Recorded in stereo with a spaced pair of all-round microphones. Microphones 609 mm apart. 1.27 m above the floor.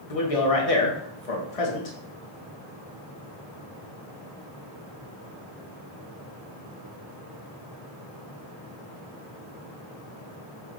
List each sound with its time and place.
0.1 s a man speaking: 65° left (ahead or behind), 1.0 m